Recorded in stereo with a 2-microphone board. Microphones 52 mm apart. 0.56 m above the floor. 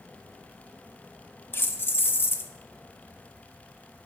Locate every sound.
1.5 s keys jangling: 40° left (ahead or behind), 0.5 m